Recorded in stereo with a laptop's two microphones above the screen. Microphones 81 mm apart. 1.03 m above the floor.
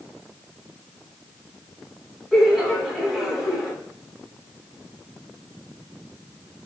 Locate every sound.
2.3 s laughter: 5° right (ahead or behind), 1.5 m